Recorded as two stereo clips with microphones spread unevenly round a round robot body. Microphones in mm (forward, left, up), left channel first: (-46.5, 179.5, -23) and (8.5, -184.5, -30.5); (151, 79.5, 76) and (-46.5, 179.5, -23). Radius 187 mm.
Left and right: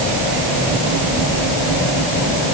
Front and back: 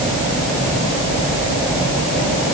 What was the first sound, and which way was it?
Only background noise.